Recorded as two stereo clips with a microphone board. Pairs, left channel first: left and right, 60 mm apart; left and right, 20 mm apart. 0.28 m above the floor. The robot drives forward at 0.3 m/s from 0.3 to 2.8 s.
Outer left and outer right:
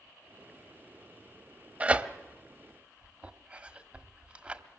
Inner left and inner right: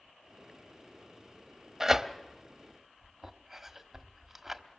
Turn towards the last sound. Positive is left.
turn(degrees=-20)  # may be behind; listen again after turning